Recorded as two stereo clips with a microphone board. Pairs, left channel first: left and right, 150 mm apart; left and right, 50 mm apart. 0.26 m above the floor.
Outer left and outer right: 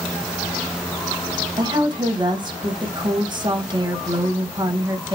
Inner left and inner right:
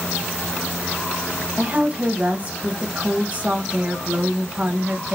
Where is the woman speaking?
30° right (ahead or behind), 1.2 m.